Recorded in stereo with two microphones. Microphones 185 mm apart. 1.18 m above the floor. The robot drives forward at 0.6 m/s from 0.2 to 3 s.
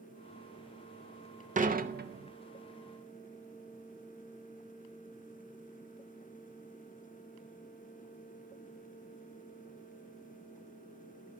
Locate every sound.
1.6 s dishes clattering: 45° right (ahead or behind), 0.7 m; by 2.3 s 65° right (ahead or behind), 0.6 m